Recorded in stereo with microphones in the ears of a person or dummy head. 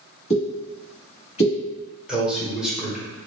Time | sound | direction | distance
0.3 | a pop | 35° left (ahead or behind) | 1.2 m
2.1 | a man speaking | centre (ahead or behind) | 1.1 m